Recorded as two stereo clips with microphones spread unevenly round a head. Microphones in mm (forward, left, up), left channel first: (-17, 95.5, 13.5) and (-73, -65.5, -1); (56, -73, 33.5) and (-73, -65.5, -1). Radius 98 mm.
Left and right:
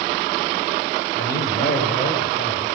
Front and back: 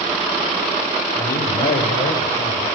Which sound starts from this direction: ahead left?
A man speaking, at 1.2 s.